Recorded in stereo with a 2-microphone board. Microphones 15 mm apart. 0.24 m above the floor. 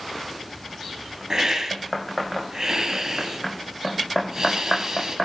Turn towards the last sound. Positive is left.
turn(degrees=-40)  # may be behind; listen again after turning